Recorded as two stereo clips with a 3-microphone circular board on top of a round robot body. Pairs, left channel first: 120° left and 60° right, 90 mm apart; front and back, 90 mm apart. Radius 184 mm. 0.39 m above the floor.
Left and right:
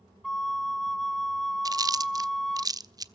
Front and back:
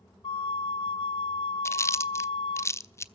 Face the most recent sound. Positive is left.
turn(degrees=-45)